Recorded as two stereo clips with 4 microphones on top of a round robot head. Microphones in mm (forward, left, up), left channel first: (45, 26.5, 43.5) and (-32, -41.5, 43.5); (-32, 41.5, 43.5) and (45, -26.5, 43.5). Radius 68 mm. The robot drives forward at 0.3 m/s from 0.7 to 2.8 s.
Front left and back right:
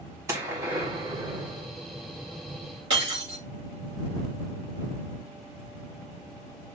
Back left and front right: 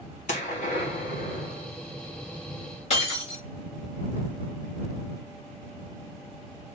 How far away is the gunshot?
About 1.5 m.